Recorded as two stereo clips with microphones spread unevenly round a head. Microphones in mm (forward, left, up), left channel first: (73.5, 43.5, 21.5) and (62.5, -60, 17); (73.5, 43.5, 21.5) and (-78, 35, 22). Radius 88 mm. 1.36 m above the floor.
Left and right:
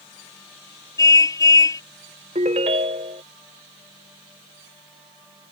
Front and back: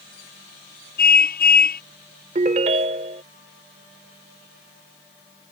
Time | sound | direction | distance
1.0 | a car horn | 25° left | ?
2.4 | a ringtone | 130° right | ?